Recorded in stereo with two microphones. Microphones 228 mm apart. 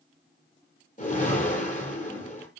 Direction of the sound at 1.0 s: 35° left (ahead or behind).